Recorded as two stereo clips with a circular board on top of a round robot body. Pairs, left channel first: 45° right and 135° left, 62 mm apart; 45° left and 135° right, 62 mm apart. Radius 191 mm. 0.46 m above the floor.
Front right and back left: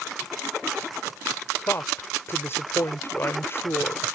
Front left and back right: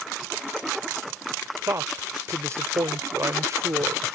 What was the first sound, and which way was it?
A woman speaking, 95° right.